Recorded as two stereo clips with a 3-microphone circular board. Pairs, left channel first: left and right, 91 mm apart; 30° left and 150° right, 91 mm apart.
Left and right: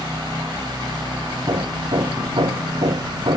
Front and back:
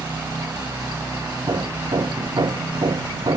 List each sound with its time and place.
1.5 s hammering: 115° right